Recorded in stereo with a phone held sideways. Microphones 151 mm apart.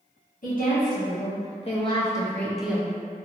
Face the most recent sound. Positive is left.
turn(degrees=-15)  # may be behind; listen again after turning